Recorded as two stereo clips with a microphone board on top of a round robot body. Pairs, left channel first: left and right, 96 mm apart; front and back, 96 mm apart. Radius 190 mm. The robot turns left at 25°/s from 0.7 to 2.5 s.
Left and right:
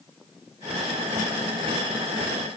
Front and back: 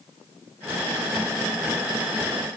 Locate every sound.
Only background noise.